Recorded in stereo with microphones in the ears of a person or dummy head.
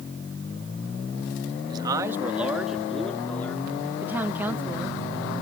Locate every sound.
1.7 s a man speaking: 20° right (ahead or behind); by 3.9 s 20° left (ahead or behind)
4.0 s a woman speaking: 15° right (ahead or behind)